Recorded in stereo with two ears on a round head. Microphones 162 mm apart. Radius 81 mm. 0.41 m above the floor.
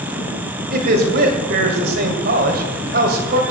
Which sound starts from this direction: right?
A man speaking, at 0.7 s.